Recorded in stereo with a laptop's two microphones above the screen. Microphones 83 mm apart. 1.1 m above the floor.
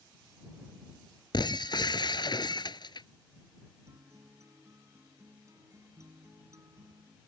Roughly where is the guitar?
Right.